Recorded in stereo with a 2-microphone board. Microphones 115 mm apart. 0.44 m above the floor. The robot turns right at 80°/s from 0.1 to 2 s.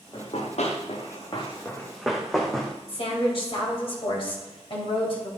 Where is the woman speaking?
50° left (ahead or behind), 2.5 m.